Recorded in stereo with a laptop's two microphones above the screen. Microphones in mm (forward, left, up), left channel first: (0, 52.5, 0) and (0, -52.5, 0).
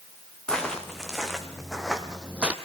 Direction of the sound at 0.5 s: 5° left (ahead or behind).